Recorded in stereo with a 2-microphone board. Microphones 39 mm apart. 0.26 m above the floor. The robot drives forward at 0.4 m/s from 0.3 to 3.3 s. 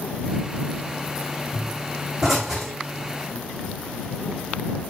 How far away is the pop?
About 4.5 m.